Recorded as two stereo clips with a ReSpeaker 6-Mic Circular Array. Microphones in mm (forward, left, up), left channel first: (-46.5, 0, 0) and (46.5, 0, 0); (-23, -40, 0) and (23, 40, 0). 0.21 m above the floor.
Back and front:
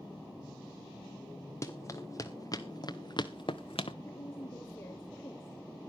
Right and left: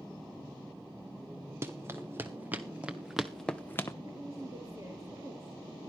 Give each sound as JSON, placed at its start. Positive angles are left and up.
{"t": 1.6, "sound": "running footsteps", "azimuth_deg": 120, "distance_m": 3.0}
{"t": 4.0, "sound": "a woman speaking", "azimuth_deg": 120, "distance_m": 3.5}